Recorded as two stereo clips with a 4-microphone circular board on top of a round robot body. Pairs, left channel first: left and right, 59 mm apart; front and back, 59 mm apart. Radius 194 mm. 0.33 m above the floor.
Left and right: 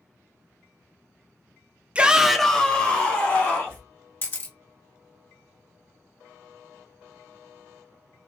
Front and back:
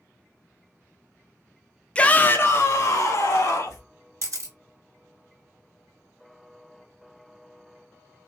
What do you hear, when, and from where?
1.9 s a shout: 45° right, 0.9 m; by 3.8 s 35° left, 1.8 m
4.2 s a camera shutter: 145° left, 1.5 m